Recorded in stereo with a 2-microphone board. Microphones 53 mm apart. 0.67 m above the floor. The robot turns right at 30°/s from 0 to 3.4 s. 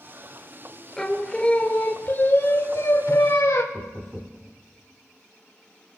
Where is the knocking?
25° right (ahead or behind), 1.1 m.